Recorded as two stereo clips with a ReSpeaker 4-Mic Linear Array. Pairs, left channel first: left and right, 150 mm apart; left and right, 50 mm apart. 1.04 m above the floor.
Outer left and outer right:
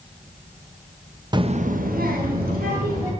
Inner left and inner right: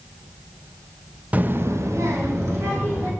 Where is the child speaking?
30° right (ahead or behind), 0.7 m; by 3.1 s 75° right (ahead or behind), 2.5 m.